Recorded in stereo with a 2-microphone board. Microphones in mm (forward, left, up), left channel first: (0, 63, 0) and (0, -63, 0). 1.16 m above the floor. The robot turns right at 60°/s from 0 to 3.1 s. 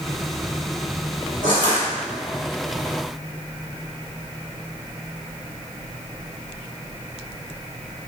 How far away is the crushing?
About 1.3 m.